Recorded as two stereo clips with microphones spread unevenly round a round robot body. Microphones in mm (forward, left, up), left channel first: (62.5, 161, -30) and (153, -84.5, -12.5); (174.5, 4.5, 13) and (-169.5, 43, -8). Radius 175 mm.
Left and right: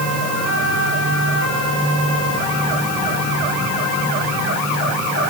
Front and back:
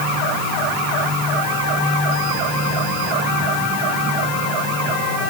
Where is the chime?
No chime in this recording.